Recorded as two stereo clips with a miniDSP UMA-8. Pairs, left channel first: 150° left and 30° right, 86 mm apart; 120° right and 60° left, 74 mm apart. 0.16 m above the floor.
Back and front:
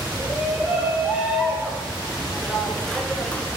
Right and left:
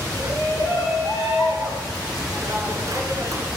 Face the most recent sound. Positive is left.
turn(degrees=80)